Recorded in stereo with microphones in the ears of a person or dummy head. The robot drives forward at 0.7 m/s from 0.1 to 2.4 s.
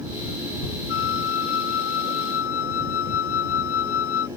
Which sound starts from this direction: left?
A flute, at 0.9 s.